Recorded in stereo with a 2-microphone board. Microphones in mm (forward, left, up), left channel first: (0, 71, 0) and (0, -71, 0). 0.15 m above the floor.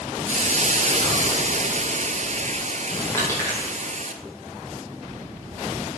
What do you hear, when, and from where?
0.3 s a hiss: 55° right (ahead or behind), 1.0 m
3.1 s crushing: 20° left (ahead or behind), 5.5 m